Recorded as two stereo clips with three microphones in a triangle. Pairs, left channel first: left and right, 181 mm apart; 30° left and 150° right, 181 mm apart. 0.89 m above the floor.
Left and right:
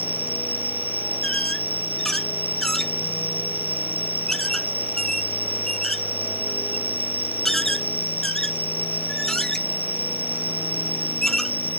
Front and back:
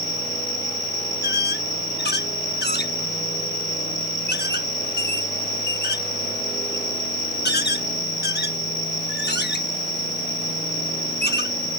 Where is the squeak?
5° left.